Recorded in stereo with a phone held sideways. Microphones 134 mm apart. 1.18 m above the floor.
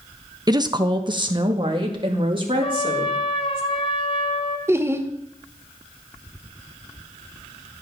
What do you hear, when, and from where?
0.5 s a woman speaking: 30° right (ahead or behind), 0.9 m; by 3.6 s 40° right (ahead or behind), 4 m
2.6 s a trumpet: 45° left (ahead or behind), 2 m
4.7 s laughter: 20° right (ahead or behind), 1.4 m